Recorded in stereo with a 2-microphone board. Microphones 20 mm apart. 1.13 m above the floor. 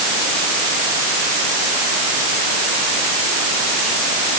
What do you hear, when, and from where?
Only background noise.